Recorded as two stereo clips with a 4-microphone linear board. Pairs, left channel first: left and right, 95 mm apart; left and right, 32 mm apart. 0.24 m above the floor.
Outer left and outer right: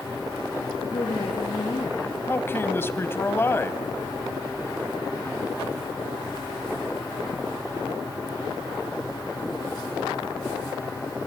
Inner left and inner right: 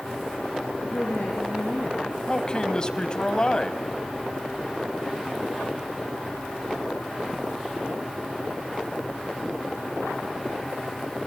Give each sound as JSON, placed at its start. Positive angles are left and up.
{"t": 0.8, "sound": "a woman speaking", "side_deg": 50, "distance_m": 4.5}
{"t": 2.3, "sound": "a man speaking", "side_deg": 25, "distance_m": 1.1}